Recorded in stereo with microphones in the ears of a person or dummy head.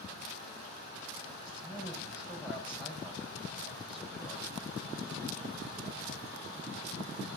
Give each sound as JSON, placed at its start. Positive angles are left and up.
{"t": 1.5, "sound": "a man speaking", "side_deg": 40, "distance_m": 5.0}